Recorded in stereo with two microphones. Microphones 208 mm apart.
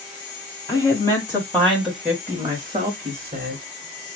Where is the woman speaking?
20° left (ahead or behind), 2 m; by 3.6 s 40° right (ahead or behind), 2.0 m.